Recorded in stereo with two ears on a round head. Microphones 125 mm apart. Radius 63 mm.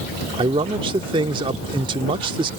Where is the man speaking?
35° right (ahead or behind).